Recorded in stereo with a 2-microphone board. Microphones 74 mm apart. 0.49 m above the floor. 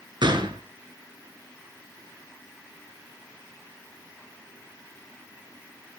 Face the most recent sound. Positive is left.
turn(degrees=-80)